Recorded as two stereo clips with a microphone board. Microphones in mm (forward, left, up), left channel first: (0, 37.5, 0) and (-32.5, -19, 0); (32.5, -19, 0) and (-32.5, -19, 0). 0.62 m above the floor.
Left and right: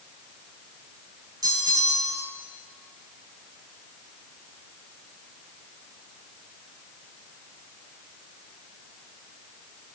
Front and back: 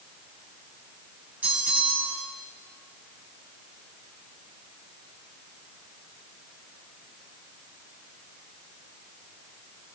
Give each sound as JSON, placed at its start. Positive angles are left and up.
{"t": 1.4, "sound": "a bell", "azimuth_deg": -115, "distance_m": 1.8}